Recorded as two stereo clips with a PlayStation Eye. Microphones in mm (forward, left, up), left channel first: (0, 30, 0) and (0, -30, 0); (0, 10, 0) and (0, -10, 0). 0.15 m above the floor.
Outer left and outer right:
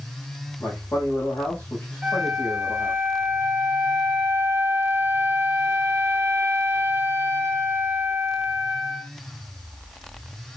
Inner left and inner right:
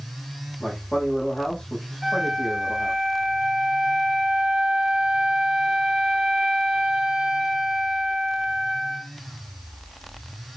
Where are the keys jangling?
I don't hear keys jangling.